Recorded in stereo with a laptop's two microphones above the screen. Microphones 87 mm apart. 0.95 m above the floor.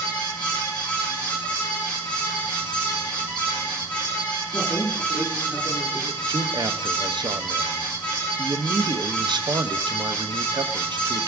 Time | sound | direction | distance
0.0 | a fan | 15° left (ahead or behind) | 7 m
4.5 | a man speaking | 35° left (ahead or behind) | 3.5 m
6.3 | a man speaking | 55° right (ahead or behind) | 0.9 m